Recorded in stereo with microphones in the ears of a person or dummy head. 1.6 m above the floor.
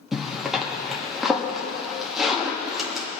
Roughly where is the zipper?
Centre.